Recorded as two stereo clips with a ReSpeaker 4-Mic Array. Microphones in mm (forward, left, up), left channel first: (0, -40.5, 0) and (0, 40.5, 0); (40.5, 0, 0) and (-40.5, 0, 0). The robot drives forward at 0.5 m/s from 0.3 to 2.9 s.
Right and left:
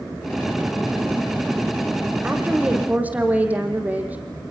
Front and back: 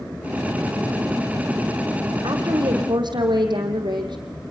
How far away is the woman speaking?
About 4.5 m.